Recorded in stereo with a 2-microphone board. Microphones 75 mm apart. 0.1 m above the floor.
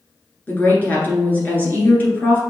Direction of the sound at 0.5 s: 25° left (ahead or behind).